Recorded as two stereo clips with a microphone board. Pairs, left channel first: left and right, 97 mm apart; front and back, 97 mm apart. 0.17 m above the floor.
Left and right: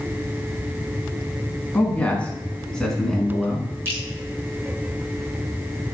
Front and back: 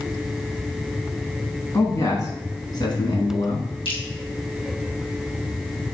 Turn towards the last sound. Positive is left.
turn(degrees=-20)